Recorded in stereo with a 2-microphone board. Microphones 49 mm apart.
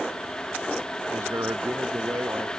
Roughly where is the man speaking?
Right.